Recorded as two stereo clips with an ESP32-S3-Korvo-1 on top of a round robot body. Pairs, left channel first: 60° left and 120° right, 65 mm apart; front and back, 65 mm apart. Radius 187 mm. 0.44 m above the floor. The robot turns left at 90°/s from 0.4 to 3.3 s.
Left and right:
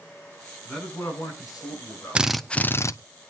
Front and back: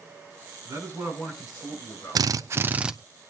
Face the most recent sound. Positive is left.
turn(degrees=65)